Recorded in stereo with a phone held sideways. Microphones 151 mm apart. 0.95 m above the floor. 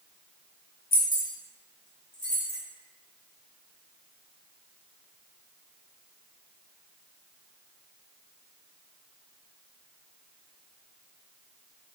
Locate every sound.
0.9 s keys jangling: 75° left (ahead or behind), 0.9 m; by 2.6 s 50° left (ahead or behind), 1.1 m